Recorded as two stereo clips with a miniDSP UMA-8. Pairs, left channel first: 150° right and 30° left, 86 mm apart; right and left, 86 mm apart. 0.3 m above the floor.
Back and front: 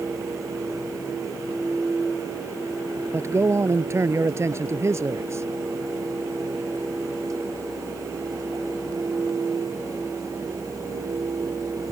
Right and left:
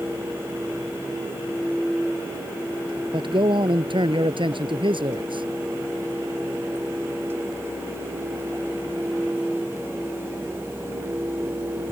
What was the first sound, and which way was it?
A man speaking, 85° left.